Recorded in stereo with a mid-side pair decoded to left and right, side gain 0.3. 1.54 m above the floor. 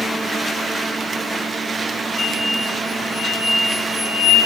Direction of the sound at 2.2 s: 45° left.